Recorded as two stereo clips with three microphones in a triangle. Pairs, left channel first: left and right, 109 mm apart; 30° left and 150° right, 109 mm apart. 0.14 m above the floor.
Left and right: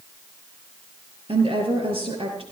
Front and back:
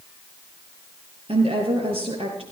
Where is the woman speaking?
120° right, 4 m.